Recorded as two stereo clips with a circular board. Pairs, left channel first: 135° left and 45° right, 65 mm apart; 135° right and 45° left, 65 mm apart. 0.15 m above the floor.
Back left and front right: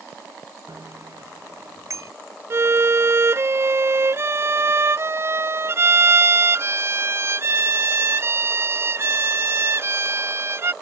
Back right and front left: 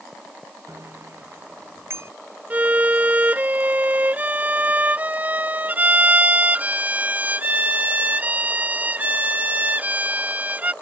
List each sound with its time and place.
0.7 s a bicycle bell: 5° right
2.5 s a violin: 15° right